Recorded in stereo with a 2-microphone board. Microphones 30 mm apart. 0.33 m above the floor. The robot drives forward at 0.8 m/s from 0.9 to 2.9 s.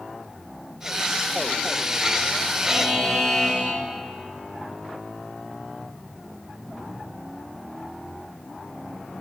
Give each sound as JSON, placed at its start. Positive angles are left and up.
{"t": 2.6, "sound": "a buzzer", "side_deg": -10, "distance_m": 1.3}